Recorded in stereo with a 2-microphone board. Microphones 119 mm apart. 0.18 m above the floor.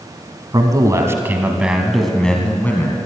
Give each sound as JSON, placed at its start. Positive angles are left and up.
{"t": 0.5, "sound": "a man speaking", "side_deg": -35, "distance_m": 1.5}